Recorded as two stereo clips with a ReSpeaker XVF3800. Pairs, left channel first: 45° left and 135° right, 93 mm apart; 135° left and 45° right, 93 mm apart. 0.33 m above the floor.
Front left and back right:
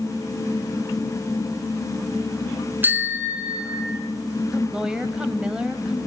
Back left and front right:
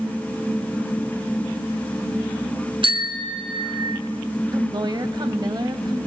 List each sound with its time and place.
2.8 s a bicycle bell: 65° right, 3 m; by 4.0 s 60° right, 2.0 m
4.5 s a woman speaking: 55° right, 1.9 m